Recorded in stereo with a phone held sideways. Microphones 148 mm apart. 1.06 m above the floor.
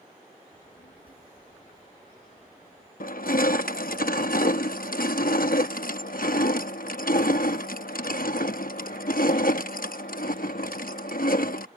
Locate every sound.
0.5 s a child speaking: 75° left (ahead or behind)
3.0 s crushing: 75° left (ahead or behind)